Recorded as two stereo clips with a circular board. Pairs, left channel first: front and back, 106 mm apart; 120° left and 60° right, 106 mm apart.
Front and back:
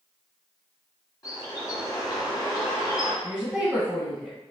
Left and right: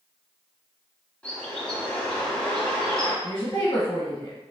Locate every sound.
1.2 s a bird: 45° left, 1.6 m
3.2 s a woman speaking: 80° left, 1.4 m